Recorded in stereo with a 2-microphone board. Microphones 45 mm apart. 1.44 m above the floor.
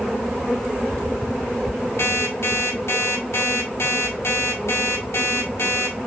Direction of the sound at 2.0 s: 65° left (ahead or behind).